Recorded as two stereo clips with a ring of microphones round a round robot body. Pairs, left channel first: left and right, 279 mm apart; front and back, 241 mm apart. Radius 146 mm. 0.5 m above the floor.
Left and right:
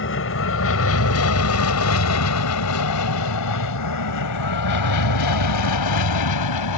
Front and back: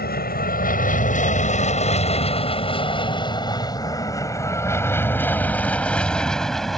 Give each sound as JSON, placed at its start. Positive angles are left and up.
{"t": 0.0, "sound": "an aircraft", "azimuth_deg": 50}